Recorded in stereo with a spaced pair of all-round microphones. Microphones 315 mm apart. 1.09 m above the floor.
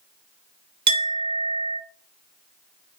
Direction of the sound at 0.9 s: 60° right (ahead or behind).